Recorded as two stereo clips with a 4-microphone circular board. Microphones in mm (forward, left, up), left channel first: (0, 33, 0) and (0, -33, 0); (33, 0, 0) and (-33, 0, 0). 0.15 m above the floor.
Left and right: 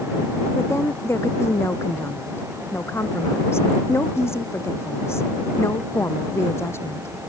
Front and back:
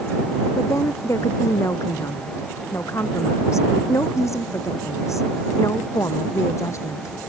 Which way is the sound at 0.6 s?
45° left.